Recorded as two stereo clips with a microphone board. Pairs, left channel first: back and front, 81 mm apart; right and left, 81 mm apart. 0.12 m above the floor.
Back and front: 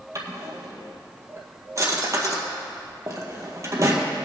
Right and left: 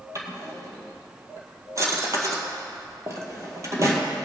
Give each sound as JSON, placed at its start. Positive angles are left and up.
{"t": 0.1, "sound": "a drawer", "azimuth_deg": 45, "distance_m": 1.7}